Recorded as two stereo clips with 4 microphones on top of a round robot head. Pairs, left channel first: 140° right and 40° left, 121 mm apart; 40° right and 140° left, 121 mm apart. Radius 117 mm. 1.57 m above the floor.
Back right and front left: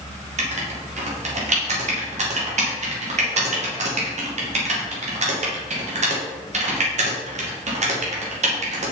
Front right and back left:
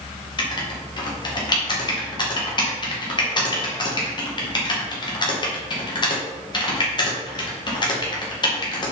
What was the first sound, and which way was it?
Writing, 15° left.